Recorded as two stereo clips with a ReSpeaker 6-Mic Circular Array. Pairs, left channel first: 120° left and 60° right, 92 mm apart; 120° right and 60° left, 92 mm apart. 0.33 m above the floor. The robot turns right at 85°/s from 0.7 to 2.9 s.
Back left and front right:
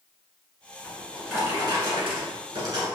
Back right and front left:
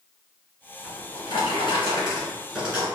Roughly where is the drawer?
Behind.